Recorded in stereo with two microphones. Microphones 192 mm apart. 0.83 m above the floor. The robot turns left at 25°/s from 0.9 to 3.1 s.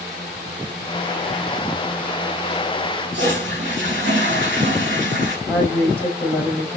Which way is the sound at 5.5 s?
10° left (ahead or behind).